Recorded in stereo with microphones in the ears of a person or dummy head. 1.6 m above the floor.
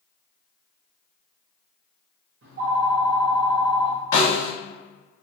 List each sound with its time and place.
2.4 s a phone ringing: 55° right (ahead or behind), 0.8 m
4.1 s a snare drum: 15° left (ahead or behind), 1.1 m